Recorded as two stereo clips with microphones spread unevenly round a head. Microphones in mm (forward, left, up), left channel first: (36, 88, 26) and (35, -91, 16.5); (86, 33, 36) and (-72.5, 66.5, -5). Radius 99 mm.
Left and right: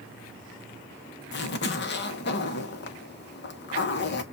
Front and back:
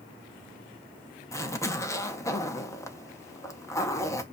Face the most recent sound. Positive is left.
turn(degrees=60)